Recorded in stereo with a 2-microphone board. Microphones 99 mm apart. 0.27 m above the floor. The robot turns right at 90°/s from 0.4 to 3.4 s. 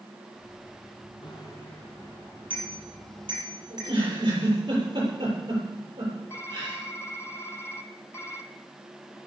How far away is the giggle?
About 8.5 m.